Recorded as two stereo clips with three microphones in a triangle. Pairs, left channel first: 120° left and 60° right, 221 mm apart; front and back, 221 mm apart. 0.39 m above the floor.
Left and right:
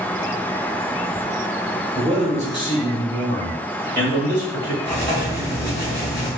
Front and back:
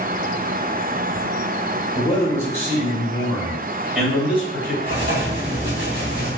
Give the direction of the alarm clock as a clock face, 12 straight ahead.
I don't hear an alarm clock.